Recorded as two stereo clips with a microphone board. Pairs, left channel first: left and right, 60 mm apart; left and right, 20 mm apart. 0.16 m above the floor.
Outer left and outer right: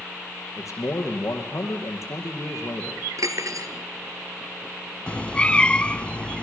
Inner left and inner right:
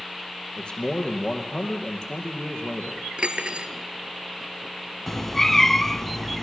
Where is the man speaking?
55° left (ahead or behind), 4.5 m.